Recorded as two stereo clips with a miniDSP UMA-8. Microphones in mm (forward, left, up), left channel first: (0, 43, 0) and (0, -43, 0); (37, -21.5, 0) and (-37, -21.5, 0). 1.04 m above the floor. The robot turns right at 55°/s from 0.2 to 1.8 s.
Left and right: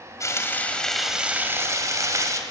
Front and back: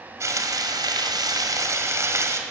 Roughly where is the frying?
Behind left.